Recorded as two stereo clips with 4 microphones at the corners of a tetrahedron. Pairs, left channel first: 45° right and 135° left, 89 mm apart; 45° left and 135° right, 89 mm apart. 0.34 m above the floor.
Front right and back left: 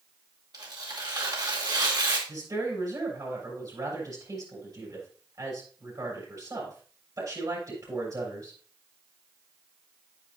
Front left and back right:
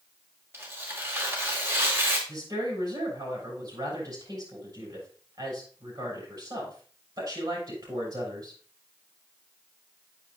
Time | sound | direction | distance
0.5 | tearing paper | 165° left | 2.5 m
2.3 | a woman speaking | 175° right | 7 m